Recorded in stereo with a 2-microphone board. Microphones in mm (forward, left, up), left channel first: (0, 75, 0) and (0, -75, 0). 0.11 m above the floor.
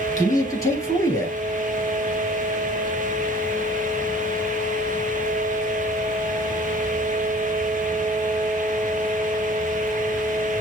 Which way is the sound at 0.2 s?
20° left (ahead or behind).